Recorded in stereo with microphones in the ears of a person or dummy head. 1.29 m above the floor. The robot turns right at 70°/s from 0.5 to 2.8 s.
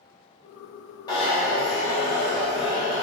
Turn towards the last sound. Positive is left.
turn(degrees=140)